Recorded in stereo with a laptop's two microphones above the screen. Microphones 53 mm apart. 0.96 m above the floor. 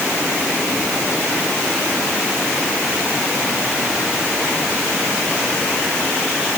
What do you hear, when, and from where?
Only background noise.